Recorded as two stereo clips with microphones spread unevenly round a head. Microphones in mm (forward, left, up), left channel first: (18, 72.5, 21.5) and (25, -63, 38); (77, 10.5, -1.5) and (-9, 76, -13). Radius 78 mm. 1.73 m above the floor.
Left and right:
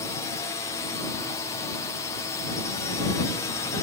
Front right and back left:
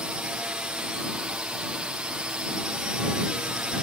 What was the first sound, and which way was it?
A drone, 70° left.